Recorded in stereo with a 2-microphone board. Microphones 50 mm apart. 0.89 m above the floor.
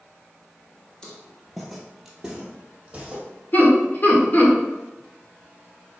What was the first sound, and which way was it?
Footsteps, 20° left (ahead or behind).